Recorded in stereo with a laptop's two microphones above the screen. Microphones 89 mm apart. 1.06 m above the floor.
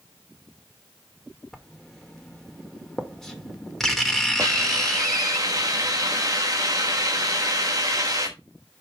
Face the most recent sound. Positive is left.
turn(degrees=-40)  # may be behind; listen again after turning